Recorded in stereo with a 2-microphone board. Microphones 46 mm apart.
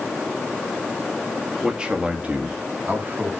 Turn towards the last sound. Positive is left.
turn(degrees=-45)  # may be behind; listen again after turning